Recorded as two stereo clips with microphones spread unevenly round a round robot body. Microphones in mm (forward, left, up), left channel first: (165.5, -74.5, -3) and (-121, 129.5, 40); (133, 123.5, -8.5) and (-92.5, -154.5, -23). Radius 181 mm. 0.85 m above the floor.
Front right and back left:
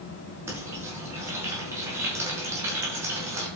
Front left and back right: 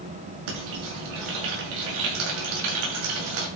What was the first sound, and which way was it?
Frying, 130° right.